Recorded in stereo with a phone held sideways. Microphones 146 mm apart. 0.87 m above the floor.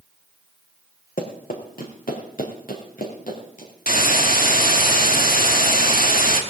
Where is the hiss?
70° left (ahead or behind), 1.8 m.